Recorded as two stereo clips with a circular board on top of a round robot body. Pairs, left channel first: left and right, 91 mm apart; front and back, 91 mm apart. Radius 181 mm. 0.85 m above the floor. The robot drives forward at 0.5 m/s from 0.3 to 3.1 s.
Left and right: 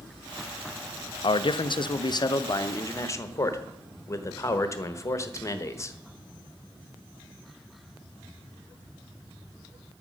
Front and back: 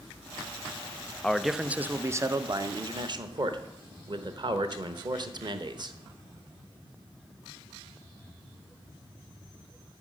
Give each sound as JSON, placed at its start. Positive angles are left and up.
{"t": 1.2, "sound": "a man speaking", "azimuth_deg": 80, "distance_m": 0.7}